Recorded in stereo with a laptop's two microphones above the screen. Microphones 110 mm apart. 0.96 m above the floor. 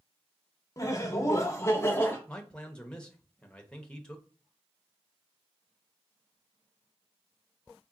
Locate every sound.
0.8 s laughter: 30° left (ahead or behind), 0.8 m; by 2.2 s 20° left (ahead or behind), 1.1 m
2.3 s a man speaking: 10° left (ahead or behind), 0.8 m